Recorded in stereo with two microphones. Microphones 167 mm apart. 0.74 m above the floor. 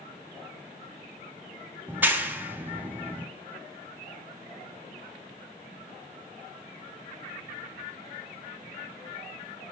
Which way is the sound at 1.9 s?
10° right (ahead or behind).